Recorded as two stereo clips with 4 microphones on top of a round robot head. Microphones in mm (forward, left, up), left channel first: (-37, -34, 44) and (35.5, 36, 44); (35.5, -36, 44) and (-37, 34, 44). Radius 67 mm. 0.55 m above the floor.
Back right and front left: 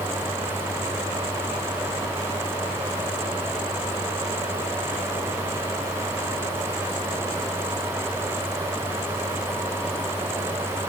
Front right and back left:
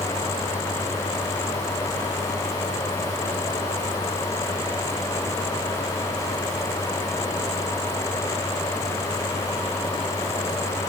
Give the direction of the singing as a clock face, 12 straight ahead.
No singing in this recording.